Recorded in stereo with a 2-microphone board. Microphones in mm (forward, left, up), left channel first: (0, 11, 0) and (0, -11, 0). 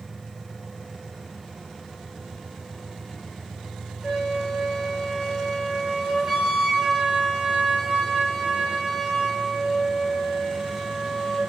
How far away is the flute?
About 6 m.